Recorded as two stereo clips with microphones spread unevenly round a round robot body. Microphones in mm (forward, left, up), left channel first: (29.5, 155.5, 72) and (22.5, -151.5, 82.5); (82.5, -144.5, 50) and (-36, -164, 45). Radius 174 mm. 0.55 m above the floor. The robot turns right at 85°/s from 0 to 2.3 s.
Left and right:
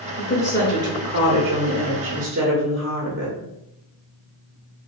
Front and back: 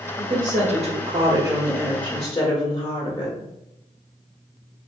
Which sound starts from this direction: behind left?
A woman speaking, at 0.2 s.